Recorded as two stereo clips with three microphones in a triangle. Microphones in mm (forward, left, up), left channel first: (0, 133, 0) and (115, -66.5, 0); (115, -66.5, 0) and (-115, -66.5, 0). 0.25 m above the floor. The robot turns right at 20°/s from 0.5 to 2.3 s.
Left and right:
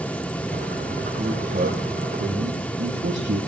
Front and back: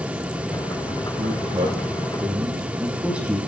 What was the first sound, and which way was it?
A man speaking, 120° right.